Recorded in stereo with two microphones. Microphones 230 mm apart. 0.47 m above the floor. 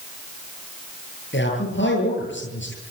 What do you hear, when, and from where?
1.3 s a man speaking: 55° left (ahead or behind), 10 m